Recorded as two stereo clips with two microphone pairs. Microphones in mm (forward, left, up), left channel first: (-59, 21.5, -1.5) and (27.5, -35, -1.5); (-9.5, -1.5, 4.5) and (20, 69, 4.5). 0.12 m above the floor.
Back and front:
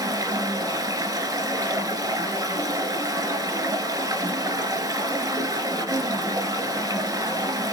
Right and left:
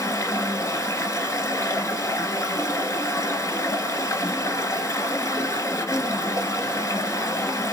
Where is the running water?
75° right, 1.0 m.